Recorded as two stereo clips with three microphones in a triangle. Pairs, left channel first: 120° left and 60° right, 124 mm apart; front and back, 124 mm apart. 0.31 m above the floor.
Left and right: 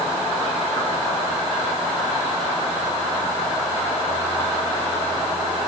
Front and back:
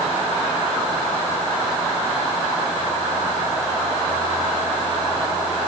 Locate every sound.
Only background noise.